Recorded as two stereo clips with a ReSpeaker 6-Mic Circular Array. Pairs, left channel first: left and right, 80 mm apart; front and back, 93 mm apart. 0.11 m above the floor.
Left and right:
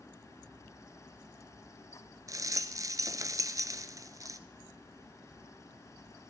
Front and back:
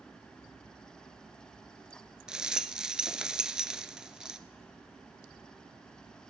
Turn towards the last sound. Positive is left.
turn(degrees=-100)